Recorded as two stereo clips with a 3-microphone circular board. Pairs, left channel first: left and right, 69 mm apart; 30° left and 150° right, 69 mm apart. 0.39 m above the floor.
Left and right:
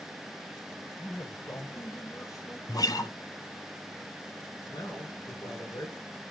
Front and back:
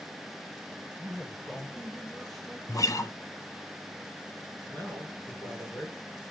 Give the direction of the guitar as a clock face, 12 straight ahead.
10 o'clock.